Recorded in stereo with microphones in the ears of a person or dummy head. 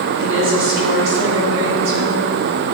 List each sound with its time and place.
0.2 s a woman speaking: 65° right (ahead or behind), 3 m; by 2.2 s 75° right (ahead or behind), 4.5 m